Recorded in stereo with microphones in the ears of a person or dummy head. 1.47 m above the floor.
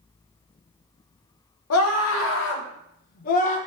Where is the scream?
80° left, 1.6 m; by 3.6 s 40° left (ahead or behind), 1.3 m.